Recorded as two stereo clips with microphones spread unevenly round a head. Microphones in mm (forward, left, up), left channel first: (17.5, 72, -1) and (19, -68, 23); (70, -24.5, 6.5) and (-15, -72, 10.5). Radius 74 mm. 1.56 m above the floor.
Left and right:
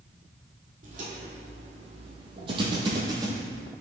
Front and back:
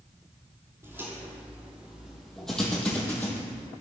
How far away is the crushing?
I don't hear crushing.